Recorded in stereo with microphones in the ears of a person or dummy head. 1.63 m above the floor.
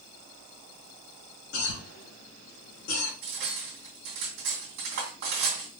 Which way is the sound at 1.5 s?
75° left (ahead or behind).